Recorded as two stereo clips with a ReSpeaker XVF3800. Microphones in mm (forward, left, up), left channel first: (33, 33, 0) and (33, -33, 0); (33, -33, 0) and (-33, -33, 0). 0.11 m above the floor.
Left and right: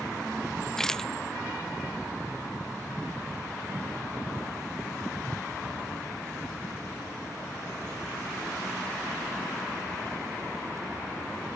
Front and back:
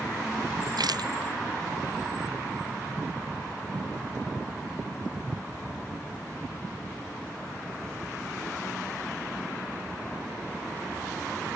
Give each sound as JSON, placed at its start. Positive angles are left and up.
{"t": 0.8, "sound": "a rattle", "azimuth_deg": 175}